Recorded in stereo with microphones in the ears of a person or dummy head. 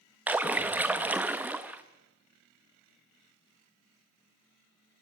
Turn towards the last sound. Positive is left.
turn(degrees=-5)  # may be behind; listen again after turning